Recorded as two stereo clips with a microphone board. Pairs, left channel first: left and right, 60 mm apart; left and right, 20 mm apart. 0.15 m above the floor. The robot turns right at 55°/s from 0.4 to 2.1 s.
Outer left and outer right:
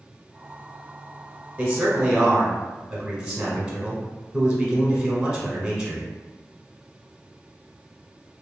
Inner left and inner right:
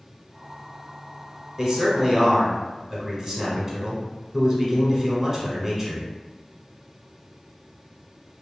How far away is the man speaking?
About 1.1 m.